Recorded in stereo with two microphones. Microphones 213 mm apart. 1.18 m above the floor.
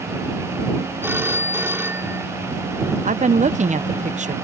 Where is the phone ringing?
10° right (ahead or behind).